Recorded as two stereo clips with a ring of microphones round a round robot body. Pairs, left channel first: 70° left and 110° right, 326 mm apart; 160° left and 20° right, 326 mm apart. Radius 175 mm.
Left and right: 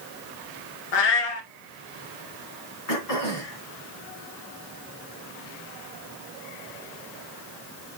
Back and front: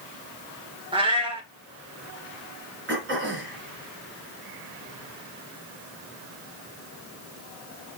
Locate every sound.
0.9 s a cat meowing: 55° left, 1.7 m
2.9 s throat clearing: 35° left, 3.5 m